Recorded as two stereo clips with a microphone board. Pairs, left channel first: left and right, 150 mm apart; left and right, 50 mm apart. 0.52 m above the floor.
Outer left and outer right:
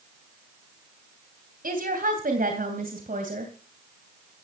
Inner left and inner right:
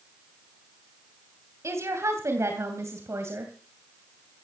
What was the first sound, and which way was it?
A woman speaking, 75° right (ahead or behind).